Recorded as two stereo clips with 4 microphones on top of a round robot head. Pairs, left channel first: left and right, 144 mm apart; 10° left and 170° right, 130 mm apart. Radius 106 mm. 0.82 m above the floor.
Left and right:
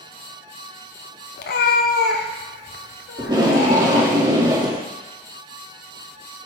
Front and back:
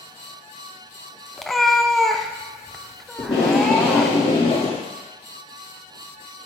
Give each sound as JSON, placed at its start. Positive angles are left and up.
{"t": 1.4, "sound": "a cat meowing", "azimuth_deg": 100, "distance_m": 0.5}
{"t": 3.2, "sound": "tape being pulled", "azimuth_deg": -30, "distance_m": 1.6}